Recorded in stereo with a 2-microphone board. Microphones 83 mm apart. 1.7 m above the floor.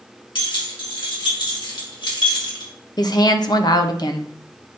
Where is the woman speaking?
50° left (ahead or behind), 0.8 m.